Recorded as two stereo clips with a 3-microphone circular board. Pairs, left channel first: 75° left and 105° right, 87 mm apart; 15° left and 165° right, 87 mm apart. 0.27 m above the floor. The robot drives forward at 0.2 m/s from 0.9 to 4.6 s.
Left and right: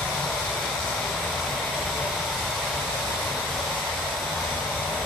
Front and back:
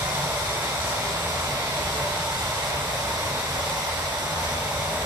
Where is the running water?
160° left, 1.3 m; by 5.1 s 170° left, 1.9 m.